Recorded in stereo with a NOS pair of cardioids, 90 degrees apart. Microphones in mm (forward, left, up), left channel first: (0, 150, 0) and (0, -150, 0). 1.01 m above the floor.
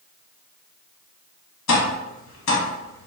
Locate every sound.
1.7 s tapping: 65° left, 1.2 m